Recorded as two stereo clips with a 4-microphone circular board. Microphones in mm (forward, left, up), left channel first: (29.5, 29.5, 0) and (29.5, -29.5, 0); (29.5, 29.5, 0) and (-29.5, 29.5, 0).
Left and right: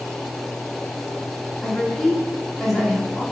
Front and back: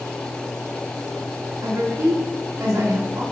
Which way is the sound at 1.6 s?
Straight behind.